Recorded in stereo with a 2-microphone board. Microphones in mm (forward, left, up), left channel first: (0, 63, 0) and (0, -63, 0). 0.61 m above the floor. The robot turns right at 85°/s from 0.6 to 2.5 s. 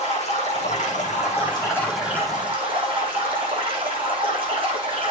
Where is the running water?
65° left, 9 m; by 5.1 s 135° right, 9 m.